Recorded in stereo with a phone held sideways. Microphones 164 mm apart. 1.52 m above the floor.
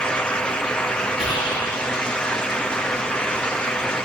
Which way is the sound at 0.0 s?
5° left (ahead or behind).